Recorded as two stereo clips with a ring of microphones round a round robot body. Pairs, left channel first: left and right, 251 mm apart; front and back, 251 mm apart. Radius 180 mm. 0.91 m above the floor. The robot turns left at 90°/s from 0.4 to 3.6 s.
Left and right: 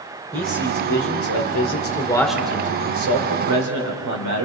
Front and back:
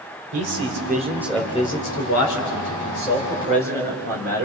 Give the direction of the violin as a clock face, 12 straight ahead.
No violin in this recording.